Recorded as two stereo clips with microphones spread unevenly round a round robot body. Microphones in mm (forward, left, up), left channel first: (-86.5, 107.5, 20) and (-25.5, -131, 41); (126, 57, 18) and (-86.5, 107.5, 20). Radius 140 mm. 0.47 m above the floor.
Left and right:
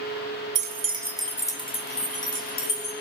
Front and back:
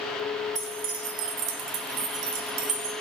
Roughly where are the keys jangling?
Behind right.